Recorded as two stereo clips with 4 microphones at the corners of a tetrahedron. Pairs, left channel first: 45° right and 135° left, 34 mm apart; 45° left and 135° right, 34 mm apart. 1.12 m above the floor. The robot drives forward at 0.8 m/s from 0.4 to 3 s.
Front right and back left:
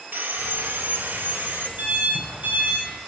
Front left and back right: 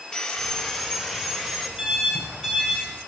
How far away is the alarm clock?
About 3 m.